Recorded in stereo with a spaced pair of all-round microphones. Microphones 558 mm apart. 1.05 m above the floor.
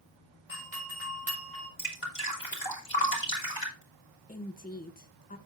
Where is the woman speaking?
15° left (ahead or behind), 0.6 m.